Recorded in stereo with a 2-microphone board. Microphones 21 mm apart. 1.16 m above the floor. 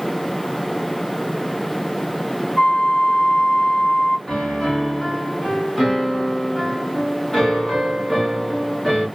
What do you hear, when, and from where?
2.6 s a flute: 45° left (ahead or behind), 1.6 m
4.3 s a piano: 15° left (ahead or behind), 1.8 m